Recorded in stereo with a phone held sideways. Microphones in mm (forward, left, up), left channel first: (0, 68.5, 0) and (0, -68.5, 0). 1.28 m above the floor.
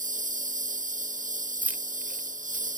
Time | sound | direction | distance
0.0 | a lawn mower | 70° right (ahead or behind) | ?
1.6 | keys jangling | 10° right (ahead or behind) | ?